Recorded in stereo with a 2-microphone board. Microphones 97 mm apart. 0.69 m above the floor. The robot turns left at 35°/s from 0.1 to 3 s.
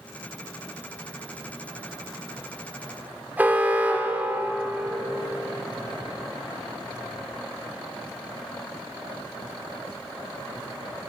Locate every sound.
3.4 s an alarm: 15° right (ahead or behind), 2.5 m